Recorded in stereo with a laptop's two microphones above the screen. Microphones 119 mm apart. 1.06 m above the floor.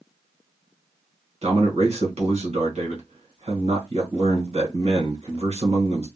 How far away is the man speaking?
About 1.4 m.